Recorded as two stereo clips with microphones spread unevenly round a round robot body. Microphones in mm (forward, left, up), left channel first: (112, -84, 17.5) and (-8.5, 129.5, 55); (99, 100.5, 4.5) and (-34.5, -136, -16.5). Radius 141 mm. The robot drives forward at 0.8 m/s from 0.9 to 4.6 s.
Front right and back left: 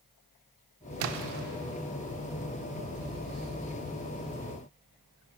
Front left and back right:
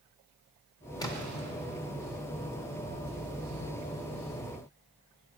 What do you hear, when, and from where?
1.0 s a splash: 135° left, 0.7 m; by 1.4 s 155° left, 0.9 m